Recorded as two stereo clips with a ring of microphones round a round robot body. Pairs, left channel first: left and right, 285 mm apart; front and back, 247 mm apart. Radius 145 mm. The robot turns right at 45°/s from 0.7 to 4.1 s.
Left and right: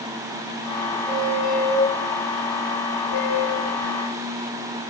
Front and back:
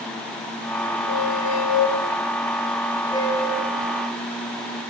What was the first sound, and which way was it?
A squeak, 20° right.